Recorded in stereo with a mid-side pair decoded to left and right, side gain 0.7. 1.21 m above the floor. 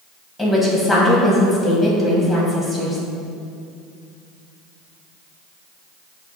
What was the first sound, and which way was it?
A woman speaking, 5° left.